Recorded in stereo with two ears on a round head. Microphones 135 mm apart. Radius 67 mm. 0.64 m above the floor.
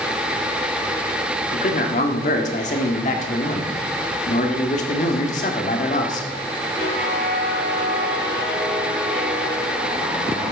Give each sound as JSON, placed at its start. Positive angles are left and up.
{"t": 1.5, "sound": "a man speaking", "side_deg": 50, "distance_m": 1.8}